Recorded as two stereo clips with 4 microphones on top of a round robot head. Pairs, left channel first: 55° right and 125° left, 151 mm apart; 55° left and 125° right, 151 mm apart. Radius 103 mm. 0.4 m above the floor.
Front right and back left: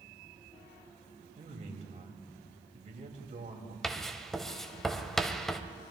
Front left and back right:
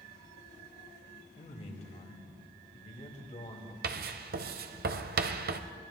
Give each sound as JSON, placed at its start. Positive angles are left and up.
{"t": 1.4, "sound": "a man speaking", "azimuth_deg": 90, "distance_m": 2.5}
{"t": 3.8, "sound": "writing", "azimuth_deg": -140, "distance_m": 0.8}